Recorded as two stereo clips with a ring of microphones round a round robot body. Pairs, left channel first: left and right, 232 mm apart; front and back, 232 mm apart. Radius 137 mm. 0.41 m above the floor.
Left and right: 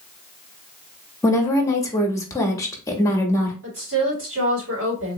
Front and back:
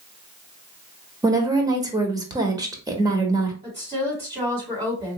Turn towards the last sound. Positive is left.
turn(degrees=-115)